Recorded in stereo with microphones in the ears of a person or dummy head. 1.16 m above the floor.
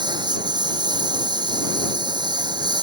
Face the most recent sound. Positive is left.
turn(degrees=-25)  # may be behind; listen again after turning